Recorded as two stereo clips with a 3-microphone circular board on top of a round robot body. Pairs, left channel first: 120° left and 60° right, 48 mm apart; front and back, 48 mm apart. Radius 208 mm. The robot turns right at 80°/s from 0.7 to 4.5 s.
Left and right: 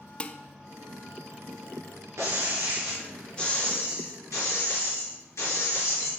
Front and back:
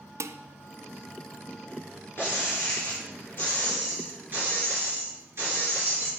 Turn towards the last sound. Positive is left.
turn(degrees=140)